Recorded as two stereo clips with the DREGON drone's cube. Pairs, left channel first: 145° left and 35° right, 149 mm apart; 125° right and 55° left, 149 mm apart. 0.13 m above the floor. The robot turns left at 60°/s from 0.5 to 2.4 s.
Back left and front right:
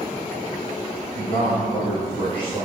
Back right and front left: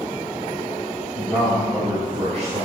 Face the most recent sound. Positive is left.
turn(degrees=95)